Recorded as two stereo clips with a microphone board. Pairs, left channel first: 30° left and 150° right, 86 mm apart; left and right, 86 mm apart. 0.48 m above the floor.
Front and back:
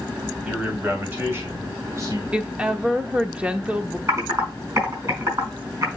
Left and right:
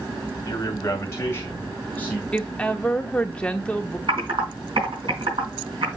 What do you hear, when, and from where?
0.5 s a man speaking: 135° left, 2.5 m; by 2.2 s 170° left, 3 m
2.3 s a woman speaking: 150° left, 0.9 m
4.1 s typing on a keyboard: 95° right, 4 m